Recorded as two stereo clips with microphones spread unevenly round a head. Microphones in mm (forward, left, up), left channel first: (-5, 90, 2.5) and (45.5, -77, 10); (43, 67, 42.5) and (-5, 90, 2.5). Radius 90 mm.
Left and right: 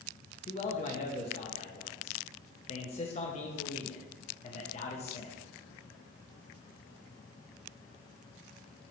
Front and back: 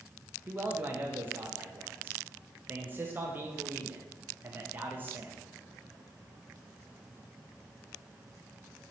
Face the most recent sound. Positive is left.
turn(degrees=160)